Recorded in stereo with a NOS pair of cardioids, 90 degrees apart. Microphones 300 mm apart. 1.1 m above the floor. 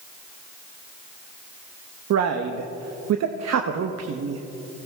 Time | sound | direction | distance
2.1 | a man speaking | 60° right | 1.1 m